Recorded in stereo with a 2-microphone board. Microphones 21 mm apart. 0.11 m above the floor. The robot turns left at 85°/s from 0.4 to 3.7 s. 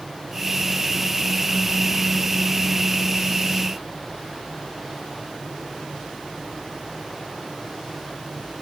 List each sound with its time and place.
Only background noise.